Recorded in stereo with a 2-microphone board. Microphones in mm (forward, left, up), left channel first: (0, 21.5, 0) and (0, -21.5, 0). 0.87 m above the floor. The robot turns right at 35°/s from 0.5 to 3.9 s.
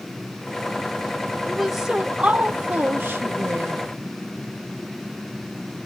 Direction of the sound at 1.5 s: 175° left.